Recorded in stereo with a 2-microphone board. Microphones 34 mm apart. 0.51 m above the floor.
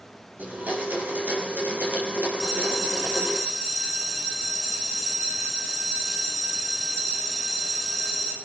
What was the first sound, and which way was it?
A blender, 55° right (ahead or behind).